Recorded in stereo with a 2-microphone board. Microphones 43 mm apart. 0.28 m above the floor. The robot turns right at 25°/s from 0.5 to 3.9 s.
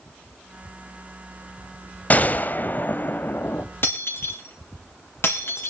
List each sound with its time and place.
2.1 s a gunshot: 55° left, 0.8 m; by 3.6 s 95° left, 0.8 m
3.8 s breaking glass: 60° left (ahead or behind), 4 m